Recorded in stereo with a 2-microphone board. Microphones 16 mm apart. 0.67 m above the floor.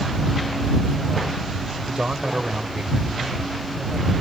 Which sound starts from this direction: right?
A man speaking, at 1.9 s.